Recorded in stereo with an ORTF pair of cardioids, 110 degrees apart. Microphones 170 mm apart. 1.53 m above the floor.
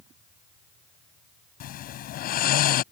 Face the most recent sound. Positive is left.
turn(degrees=65)